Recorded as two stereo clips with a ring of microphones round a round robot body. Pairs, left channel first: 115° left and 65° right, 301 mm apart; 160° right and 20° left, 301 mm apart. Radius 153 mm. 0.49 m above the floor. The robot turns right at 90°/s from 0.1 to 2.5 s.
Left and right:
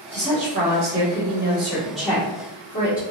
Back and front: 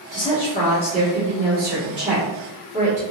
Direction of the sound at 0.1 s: 145° right.